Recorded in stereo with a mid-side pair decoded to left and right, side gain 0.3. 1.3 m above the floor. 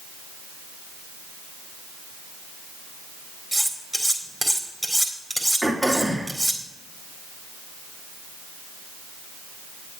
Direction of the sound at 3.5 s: 15° right.